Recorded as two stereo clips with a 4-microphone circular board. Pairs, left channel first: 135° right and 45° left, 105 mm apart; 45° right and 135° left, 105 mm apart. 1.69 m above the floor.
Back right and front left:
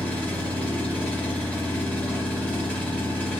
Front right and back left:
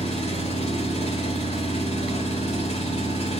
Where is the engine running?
60° right, 4 m.